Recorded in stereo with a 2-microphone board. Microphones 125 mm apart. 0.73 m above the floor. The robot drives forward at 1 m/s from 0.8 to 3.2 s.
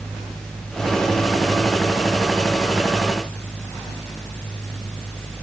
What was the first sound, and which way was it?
Only background noise.